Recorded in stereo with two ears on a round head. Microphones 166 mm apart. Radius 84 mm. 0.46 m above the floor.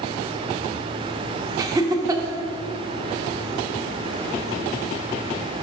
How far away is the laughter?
About 0.7 m.